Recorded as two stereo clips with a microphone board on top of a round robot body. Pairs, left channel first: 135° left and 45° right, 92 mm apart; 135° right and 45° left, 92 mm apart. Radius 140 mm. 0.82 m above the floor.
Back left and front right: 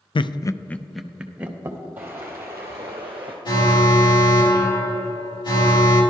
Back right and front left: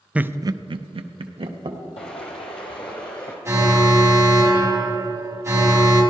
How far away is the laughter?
About 0.6 m.